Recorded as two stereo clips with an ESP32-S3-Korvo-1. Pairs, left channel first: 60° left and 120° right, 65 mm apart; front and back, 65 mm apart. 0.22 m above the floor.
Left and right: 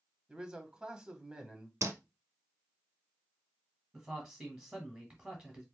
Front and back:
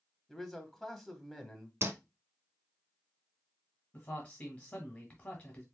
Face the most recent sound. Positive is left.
turn(degrees=-45)